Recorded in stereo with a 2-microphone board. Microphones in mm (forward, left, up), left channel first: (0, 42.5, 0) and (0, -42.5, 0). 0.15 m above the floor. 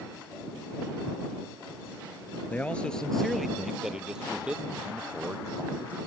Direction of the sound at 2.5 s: 20° left (ahead or behind).